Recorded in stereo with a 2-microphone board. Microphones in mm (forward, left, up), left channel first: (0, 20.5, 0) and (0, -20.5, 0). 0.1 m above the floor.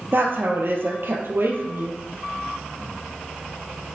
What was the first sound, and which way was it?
A woman speaking, 60° right (ahead or behind).